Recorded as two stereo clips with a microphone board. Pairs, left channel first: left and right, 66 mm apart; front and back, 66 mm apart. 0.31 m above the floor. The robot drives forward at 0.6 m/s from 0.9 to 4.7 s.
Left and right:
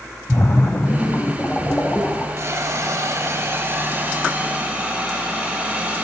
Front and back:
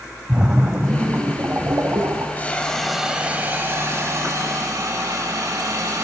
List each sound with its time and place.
0.3 s a splash: 115° left, 0.7 m; by 2.3 s 155° left, 1.3 m
2.4 s a hiss: 60° right, 0.7 m; by 6.0 s 155° right, 1.3 m